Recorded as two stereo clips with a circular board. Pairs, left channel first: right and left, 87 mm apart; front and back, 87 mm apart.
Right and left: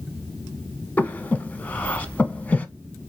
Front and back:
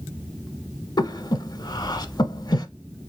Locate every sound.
1.0 s breathing: 20° right, 0.7 m